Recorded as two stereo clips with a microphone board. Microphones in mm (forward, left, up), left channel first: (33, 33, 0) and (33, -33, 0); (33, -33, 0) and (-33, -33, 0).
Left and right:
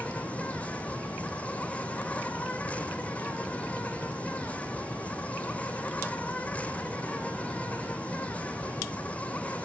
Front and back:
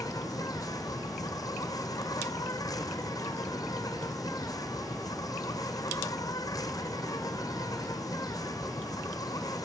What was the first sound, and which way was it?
An insect, 20° left.